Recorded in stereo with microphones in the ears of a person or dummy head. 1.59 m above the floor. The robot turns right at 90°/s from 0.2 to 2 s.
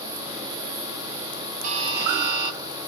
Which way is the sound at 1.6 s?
50° right.